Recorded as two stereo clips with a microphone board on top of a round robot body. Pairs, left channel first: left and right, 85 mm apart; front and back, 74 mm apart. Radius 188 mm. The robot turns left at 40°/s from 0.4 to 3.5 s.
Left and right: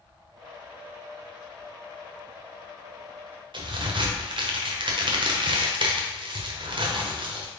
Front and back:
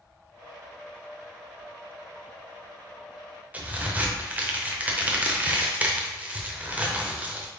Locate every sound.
3.5 s a crack: 110° right, 0.9 m